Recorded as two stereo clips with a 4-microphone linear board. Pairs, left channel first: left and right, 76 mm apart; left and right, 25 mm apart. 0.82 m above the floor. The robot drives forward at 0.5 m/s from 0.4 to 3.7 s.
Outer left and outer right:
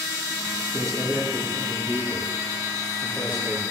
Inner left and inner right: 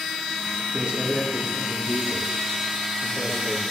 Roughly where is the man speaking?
Right.